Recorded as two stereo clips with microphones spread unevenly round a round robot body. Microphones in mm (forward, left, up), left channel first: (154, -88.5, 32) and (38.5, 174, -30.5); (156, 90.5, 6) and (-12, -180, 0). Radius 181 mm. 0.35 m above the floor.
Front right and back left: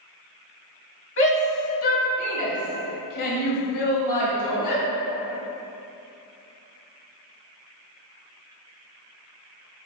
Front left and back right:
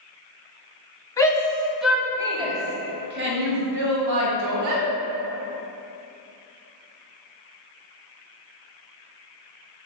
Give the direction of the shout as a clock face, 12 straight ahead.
1 o'clock.